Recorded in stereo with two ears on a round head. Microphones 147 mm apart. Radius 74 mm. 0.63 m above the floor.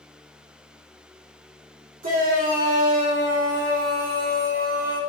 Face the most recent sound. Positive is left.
turn(degrees=-55)  # may be behind; listen again after turning